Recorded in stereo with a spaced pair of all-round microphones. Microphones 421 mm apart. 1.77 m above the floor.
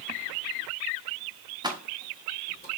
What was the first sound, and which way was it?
Keys jangling, 10° right (ahead or behind).